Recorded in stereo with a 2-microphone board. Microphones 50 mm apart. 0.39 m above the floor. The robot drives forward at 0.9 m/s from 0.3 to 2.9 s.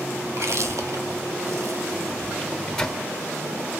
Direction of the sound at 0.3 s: 65° right (ahead or behind).